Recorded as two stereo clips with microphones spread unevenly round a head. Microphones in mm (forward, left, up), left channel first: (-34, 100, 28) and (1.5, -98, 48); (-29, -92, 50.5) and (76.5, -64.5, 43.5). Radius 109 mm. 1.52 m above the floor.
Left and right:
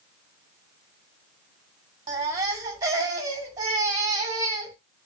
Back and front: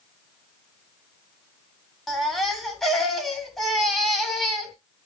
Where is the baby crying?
95° right, 1.1 m.